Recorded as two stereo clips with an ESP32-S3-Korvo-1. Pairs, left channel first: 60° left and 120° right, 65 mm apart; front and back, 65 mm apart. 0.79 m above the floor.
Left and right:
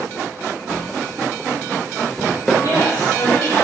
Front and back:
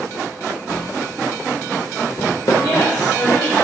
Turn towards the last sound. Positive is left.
turn(degrees=15)